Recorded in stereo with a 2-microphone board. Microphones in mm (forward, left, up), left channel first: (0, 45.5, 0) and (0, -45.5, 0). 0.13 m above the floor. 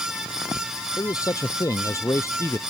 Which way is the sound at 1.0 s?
45° left (ahead or behind).